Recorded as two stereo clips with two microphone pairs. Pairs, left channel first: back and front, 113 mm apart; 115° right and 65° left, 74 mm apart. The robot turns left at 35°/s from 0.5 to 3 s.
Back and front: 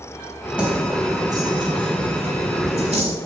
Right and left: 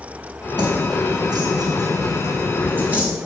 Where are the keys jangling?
80° left, 4 m; by 3.1 s 5° right, 4 m.